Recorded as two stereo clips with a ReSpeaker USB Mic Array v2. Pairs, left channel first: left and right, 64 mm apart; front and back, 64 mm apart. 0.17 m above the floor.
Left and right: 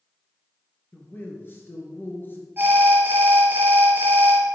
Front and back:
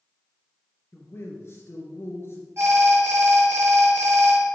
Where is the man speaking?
40° left, 3 m.